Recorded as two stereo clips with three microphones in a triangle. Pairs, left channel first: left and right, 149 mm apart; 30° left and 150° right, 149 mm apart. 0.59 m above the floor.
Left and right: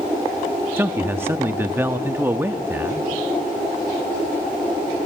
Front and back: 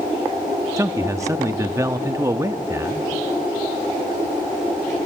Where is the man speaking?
135° right, 0.6 m.